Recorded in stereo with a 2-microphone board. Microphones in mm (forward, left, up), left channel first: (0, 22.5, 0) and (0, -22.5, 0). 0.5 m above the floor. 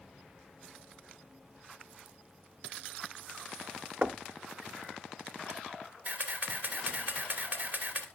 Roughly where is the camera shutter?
Right.